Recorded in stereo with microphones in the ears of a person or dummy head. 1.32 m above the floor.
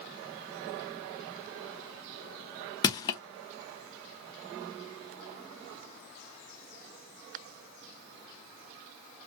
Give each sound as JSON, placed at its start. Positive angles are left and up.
{"t": 2.8, "sound": "crushing", "side_deg": 20, "distance_m": 0.5}